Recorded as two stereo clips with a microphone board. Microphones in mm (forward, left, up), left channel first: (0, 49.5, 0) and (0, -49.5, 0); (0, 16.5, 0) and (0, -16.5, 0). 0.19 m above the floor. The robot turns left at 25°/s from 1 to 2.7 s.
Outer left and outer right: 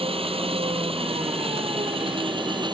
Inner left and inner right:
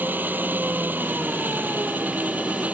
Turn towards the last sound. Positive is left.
turn(degrees=-125)